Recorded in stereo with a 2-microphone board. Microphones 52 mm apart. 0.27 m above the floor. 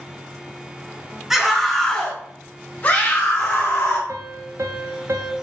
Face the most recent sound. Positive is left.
turn(degrees=-65)  # may be behind; listen again after turning